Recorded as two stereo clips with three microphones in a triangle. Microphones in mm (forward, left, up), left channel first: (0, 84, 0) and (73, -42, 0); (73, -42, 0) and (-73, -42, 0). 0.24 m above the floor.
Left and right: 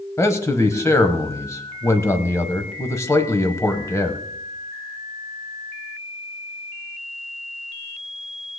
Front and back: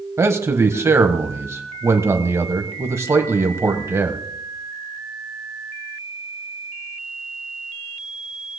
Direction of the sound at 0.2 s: 150° left.